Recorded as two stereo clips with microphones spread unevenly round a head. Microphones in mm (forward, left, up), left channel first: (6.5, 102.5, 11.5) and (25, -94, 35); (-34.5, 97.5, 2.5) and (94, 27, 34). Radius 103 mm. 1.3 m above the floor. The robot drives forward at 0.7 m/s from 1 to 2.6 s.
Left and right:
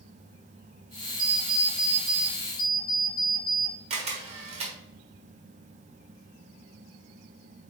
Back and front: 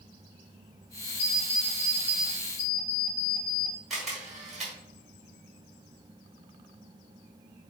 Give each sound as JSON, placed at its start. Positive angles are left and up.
{"t": 1.2, "sound": "an alarm clock", "azimuth_deg": -170, "distance_m": 1.7}
{"t": 3.9, "sound": "a camera shutter", "azimuth_deg": -100, "distance_m": 1.1}